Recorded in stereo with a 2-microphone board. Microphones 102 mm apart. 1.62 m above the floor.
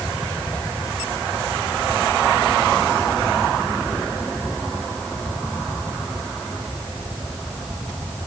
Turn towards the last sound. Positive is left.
No sound to turn to.